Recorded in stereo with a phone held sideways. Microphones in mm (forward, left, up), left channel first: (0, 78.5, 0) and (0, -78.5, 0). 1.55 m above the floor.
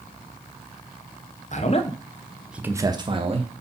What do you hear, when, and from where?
1.5 s a man speaking: 50° left (ahead or behind), 1.0 m; by 3.5 s 45° right (ahead or behind), 1.3 m